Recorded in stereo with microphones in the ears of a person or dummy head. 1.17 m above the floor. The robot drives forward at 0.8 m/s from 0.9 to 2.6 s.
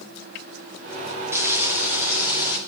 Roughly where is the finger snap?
I don't hear a finger snap.